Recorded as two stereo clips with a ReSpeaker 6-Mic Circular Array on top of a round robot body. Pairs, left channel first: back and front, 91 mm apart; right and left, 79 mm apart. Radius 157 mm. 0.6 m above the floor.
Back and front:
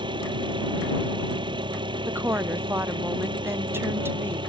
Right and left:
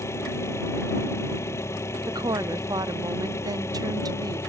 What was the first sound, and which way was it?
An engine running, 35° right.